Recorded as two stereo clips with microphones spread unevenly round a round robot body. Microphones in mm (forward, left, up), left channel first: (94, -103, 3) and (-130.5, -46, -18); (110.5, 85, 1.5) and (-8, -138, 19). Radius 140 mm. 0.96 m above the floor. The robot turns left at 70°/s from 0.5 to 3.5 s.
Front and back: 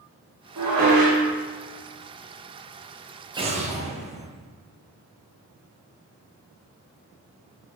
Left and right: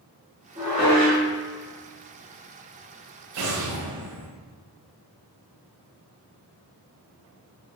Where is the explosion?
125° right, 0.6 m; by 4.3 s 135° right, 0.6 m.